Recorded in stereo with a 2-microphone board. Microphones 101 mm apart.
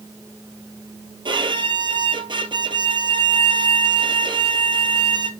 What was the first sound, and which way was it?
A violin, 50° right (ahead or behind).